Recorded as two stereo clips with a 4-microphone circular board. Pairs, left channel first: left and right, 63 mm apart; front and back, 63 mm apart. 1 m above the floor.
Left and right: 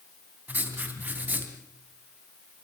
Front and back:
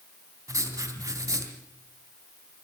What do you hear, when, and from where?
0.5 s writing: 155° right, 2.5 m